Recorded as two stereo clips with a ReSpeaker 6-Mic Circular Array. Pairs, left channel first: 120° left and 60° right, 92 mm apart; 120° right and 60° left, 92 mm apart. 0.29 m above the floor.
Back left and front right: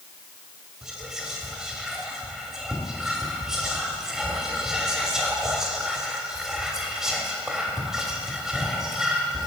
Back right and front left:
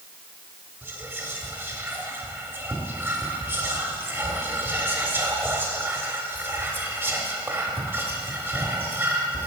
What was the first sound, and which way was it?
Whispering, 20° left.